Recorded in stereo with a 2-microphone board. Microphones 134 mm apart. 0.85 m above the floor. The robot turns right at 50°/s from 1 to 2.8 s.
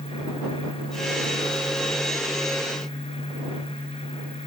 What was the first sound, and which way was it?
Only background noise.